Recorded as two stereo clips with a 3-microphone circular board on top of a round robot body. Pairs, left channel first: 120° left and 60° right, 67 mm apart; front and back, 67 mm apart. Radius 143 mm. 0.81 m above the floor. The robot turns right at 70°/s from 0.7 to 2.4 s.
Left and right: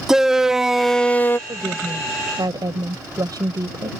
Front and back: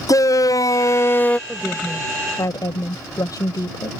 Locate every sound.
0.1 s a shout: 25° left; by 1.4 s 70° left
1.5 s a woman speaking: 95° right; by 3.9 s 30° right